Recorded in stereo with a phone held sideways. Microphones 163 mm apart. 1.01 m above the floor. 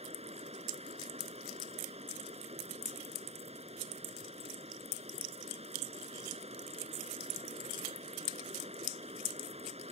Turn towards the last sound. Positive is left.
turn(degrees=-40)  # may be behind; listen again after turning